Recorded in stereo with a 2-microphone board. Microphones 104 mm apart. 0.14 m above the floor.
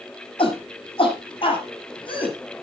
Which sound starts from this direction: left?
A shout, at 0.4 s.